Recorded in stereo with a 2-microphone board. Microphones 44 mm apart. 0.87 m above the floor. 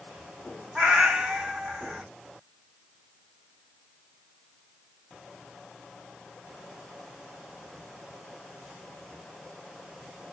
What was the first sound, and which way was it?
A cat meowing, 20° right (ahead or behind).